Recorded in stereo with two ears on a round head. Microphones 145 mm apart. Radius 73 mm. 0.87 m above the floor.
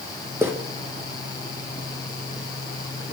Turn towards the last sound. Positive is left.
turn(degrees=-15)  # may be behind; listen again after turning